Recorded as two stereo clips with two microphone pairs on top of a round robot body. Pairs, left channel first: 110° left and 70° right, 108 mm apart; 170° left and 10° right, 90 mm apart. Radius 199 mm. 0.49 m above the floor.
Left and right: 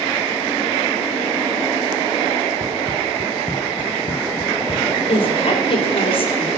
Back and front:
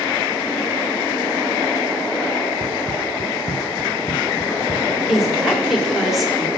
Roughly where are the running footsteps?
Ahead right.